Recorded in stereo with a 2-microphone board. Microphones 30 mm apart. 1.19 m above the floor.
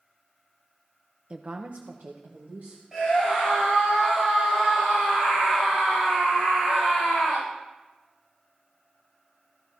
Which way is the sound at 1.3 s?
35° right (ahead or behind).